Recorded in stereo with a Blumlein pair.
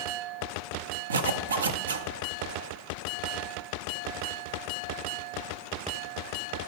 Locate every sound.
1.1 s a zipper: 70° right, 0.6 m